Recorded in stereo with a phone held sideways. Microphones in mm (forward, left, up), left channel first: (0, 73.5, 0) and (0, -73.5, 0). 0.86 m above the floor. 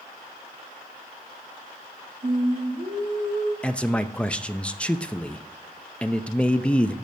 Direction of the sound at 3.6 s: 10° left (ahead or behind).